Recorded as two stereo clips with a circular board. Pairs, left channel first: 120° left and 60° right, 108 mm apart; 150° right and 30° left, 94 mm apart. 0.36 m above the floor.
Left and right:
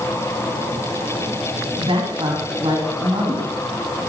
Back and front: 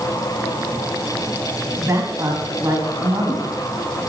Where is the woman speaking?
25° right, 2.5 m.